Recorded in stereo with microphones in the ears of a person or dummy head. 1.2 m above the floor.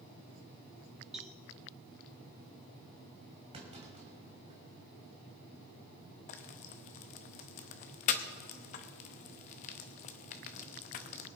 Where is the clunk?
25° right (ahead or behind), 2.5 m.